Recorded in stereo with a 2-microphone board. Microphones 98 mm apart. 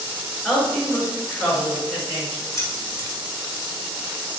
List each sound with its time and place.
0.4 s a woman speaking: 10° left (ahead or behind), 1.9 m
2.5 s keys jangling: 35° left (ahead or behind), 1.2 m